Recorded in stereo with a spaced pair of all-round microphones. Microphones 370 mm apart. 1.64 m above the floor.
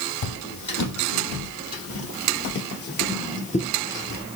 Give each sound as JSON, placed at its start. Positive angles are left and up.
{"t": 0.2, "sound": "footsteps", "side_deg": 50, "distance_m": 3.0}